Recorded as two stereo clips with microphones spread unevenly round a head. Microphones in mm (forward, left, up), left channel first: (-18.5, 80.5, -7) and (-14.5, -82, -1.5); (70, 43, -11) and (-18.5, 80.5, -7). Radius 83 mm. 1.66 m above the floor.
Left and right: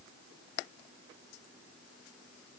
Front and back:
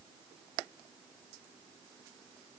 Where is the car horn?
I don't hear a car horn.